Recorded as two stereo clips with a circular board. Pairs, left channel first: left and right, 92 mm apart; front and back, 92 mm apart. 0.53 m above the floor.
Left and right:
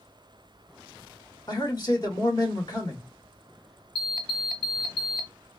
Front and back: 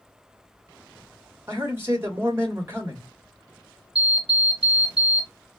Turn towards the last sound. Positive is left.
turn(degrees=180)